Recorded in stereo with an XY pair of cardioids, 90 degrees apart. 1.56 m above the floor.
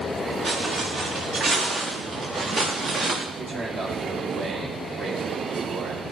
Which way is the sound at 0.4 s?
70° right.